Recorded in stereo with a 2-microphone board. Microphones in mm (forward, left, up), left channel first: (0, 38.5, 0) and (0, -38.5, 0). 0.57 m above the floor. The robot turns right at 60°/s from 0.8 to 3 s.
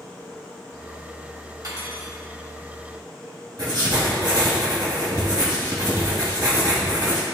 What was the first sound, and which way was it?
Cutlery clinking, 125° right.